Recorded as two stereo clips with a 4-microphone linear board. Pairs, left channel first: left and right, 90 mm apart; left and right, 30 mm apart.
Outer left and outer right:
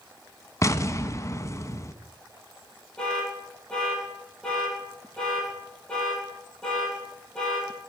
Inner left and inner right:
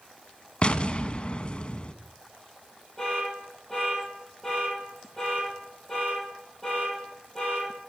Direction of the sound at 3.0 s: 10° left (ahead or behind).